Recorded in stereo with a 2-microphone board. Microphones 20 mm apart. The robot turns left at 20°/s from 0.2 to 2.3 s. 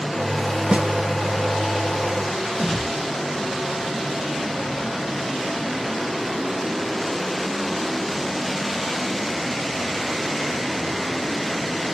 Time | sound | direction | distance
0.7 | a snare drum | 75° right (ahead or behind) | 0.7 m
2.5 | a whoosh | 40° left (ahead or behind) | 3.5 m